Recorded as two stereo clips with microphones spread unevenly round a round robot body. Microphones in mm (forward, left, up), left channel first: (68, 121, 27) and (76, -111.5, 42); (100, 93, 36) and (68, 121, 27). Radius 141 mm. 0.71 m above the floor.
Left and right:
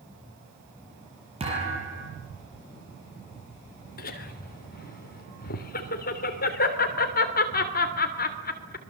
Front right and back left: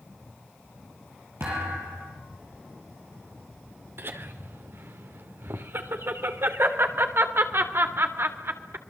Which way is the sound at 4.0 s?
145° left.